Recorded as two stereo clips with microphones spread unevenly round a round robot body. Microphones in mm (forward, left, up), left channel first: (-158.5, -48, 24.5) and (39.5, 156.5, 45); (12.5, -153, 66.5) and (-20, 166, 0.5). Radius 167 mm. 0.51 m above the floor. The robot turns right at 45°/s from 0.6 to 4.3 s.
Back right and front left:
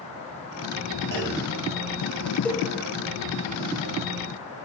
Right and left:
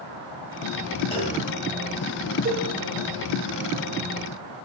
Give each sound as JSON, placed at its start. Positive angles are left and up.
{"t": 1.1, "sound": "a clunk", "azimuth_deg": -5, "distance_m": 1.3}
{"t": 2.5, "sound": "a cowbell", "azimuth_deg": 145, "distance_m": 0.9}